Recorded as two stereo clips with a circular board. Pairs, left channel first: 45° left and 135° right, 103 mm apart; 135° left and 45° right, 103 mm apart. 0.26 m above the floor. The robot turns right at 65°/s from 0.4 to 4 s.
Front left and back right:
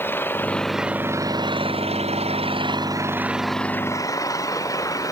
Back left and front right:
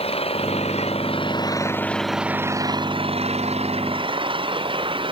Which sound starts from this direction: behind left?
An engine running, at 0.0 s.